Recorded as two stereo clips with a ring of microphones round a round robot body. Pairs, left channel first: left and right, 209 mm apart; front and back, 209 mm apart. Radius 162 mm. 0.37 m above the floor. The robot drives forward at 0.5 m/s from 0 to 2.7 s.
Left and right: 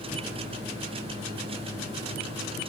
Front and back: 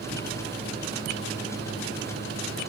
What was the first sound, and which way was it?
Only background noise.